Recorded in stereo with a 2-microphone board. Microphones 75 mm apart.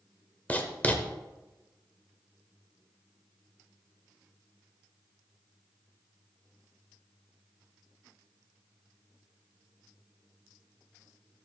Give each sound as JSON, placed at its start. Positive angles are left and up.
{"t": 0.5, "sound": "writing", "side_deg": 20, "distance_m": 0.9}